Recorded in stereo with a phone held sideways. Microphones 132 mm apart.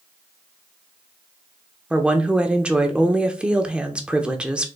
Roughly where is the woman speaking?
Centre.